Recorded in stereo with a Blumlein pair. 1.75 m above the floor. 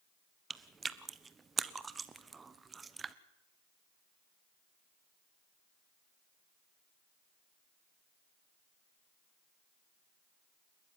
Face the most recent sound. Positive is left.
turn(degrees=-15)